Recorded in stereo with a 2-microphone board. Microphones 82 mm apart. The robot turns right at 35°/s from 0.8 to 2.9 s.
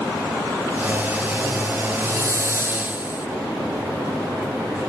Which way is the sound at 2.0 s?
60° right.